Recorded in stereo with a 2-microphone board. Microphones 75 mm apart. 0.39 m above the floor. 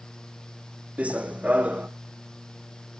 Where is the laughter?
No laughter in this recording.